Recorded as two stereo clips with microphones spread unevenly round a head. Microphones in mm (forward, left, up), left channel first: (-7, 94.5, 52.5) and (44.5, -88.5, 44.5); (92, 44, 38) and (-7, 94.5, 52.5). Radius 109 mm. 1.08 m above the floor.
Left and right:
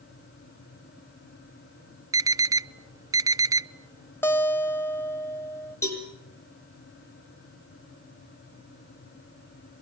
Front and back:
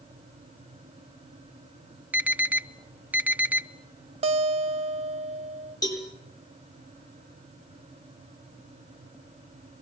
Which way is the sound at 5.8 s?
30° left.